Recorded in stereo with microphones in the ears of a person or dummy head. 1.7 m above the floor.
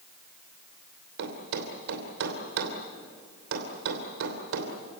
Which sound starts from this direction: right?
A thud, at 1.2 s.